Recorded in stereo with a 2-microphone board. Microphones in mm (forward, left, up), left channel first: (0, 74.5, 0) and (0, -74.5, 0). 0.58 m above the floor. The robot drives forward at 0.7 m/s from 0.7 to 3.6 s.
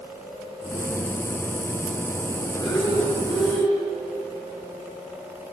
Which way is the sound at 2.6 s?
30° left (ahead or behind).